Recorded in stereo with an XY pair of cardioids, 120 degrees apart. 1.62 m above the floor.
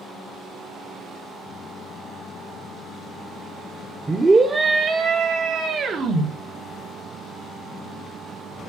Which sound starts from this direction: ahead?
A scream, at 4.1 s.